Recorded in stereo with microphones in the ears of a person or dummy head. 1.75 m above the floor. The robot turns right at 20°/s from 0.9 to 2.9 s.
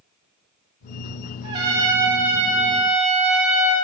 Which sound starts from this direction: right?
A trumpet, at 1.4 s.